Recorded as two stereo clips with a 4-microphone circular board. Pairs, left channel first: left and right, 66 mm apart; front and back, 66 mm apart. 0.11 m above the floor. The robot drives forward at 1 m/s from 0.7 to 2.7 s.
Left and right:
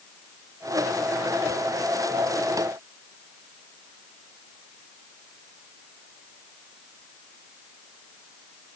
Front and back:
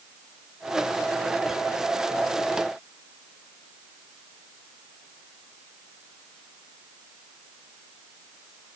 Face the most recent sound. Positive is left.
No sound to turn to.